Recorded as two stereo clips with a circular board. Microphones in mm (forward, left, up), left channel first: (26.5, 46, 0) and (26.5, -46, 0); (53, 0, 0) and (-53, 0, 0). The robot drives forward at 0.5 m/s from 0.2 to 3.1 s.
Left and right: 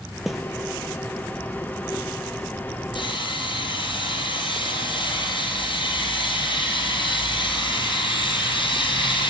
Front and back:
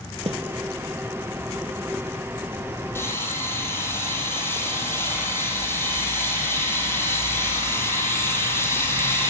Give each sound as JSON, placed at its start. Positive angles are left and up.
{"t": 0.3, "sound": "a snare drum", "azimuth_deg": -175, "distance_m": 0.9}
{"t": 3.0, "sound": "sawing", "azimuth_deg": 65, "distance_m": 5.5}